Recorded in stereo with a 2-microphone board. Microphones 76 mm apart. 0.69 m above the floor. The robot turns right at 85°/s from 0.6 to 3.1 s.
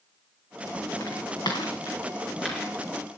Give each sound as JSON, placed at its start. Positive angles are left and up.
{"t": 1.0, "sound": "footsteps", "side_deg": 60, "distance_m": 3.0}